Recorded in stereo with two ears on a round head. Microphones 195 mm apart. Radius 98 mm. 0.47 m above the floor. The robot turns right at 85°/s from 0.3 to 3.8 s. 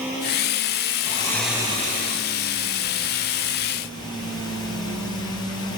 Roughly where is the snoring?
Behind left.